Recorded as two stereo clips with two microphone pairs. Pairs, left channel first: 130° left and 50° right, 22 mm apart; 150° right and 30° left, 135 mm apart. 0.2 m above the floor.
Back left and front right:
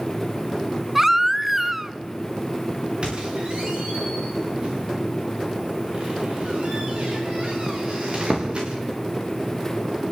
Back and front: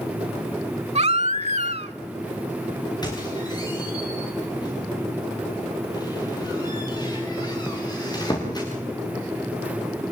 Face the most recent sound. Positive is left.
turn(degrees=-90)